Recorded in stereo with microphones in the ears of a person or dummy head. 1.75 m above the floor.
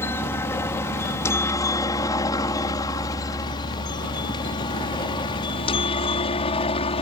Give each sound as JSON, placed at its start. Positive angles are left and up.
{"t": 0.0, "sound": "a helicopter", "side_deg": 10}